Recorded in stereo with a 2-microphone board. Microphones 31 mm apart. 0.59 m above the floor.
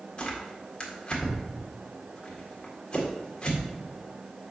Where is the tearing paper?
35° left (ahead or behind), 1.9 m.